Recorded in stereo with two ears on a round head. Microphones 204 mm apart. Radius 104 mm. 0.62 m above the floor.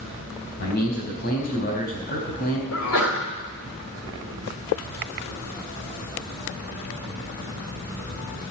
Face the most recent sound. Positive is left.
turn(degrees=65)  # may be behind; listen again after turning